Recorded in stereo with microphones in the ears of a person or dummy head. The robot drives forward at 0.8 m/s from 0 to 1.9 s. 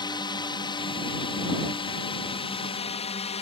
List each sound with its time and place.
0.0 s a drone: 25° left (ahead or behind); by 3.4 s 30° left (ahead or behind)